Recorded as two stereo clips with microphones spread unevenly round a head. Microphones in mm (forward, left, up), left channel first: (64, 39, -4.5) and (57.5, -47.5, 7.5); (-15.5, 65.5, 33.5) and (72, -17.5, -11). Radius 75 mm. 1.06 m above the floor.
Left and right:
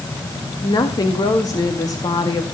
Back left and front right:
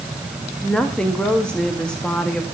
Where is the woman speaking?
50° left, 2.0 m.